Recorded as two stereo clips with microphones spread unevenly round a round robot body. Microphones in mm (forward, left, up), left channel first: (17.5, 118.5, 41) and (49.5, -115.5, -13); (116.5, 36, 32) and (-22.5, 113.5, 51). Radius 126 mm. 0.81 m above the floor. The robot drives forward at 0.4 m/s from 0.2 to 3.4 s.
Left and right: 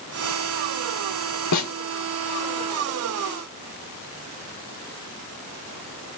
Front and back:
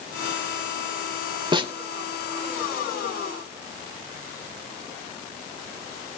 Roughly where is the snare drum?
Left.